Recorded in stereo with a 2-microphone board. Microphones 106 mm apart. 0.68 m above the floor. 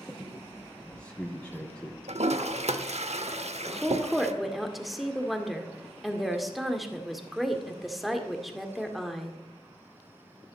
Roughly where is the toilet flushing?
Right.